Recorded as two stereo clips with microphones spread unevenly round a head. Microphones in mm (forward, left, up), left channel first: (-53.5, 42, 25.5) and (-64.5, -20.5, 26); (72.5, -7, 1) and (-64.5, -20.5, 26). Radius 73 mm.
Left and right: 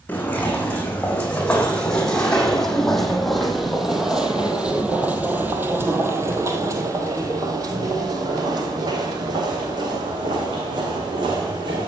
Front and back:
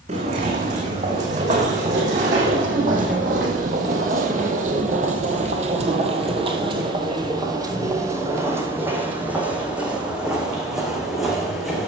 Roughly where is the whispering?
No whispering in this recording.